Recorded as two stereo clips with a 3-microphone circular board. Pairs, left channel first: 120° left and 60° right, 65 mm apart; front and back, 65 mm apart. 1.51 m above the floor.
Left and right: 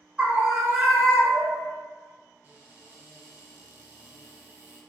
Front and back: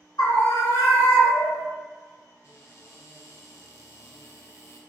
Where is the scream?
15° left, 0.7 m; by 1.7 s 30° left, 1.7 m.